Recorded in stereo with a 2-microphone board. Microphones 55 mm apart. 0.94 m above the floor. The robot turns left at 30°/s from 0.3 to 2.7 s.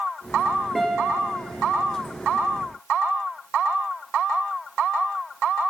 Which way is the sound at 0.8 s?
Centre (ahead or behind).